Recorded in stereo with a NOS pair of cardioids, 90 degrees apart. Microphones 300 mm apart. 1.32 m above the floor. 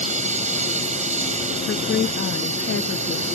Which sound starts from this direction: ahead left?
A woman speaking, at 1.7 s.